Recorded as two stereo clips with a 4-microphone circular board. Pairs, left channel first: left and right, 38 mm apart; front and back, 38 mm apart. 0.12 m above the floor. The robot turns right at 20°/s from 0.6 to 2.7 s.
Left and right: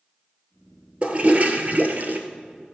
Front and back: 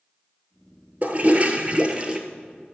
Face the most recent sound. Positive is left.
turn(degrees=-105)